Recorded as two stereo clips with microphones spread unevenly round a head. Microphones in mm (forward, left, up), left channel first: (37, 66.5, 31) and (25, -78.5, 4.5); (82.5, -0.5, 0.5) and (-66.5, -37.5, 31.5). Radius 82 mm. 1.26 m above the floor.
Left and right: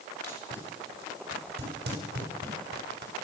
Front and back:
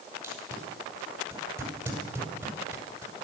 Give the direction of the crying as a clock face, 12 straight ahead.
No crying in this recording.